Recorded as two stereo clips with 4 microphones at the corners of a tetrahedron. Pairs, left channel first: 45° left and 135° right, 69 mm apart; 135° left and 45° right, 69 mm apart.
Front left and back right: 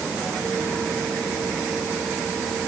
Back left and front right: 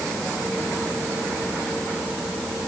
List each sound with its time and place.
Only background noise.